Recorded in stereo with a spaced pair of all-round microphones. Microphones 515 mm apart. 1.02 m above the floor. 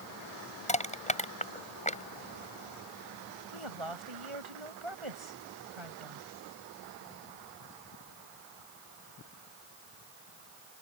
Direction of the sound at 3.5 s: 65° right (ahead or behind).